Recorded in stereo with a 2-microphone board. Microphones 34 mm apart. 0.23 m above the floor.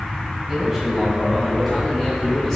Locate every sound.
0.5 s a man speaking: 15° right (ahead or behind), 1.7 m; by 2.6 s 5° left (ahead or behind), 2 m